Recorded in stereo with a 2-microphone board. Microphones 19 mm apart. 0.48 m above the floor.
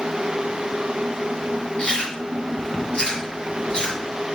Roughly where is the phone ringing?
I don't hear a phone ringing.